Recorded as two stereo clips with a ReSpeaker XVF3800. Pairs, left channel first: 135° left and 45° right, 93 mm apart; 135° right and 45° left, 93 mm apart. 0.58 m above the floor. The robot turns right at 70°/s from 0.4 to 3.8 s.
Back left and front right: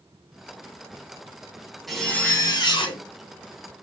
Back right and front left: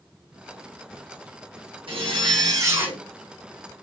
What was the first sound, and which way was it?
A zipper, 45° left.